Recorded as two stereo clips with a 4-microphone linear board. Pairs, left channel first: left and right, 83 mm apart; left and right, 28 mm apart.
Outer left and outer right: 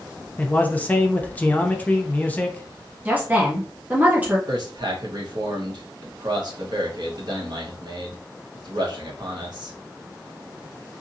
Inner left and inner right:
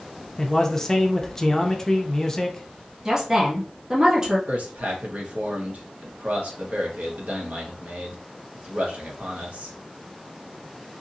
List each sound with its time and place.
0.4 s a man speaking: 20° left (ahead or behind), 0.6 m
3.0 s a woman speaking: 20° right (ahead or behind), 0.8 m
4.5 s a man speaking: 60° right (ahead or behind), 1.1 m